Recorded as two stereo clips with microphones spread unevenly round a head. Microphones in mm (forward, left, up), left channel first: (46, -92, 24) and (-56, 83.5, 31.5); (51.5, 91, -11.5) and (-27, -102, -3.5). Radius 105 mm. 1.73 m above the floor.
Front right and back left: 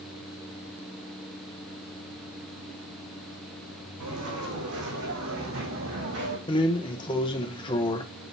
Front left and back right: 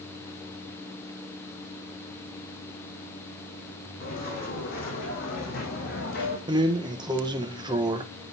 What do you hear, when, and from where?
4.0 s footsteps: 115° left, 4.5 m; by 6.4 s 105° left, 2.5 m
6.5 s a drawer: 95° right, 0.8 m